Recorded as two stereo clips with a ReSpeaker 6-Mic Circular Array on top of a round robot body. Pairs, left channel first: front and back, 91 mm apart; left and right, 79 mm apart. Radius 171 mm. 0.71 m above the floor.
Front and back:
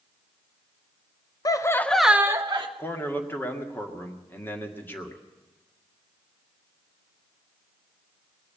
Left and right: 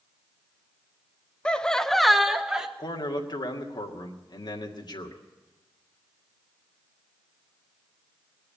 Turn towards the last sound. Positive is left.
turn(degrees=70)